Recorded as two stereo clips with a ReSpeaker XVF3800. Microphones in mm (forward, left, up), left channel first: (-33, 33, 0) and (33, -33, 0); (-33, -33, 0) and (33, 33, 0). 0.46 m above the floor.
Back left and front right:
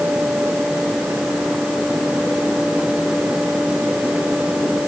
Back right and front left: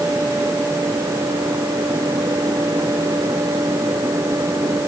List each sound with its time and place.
Only background noise.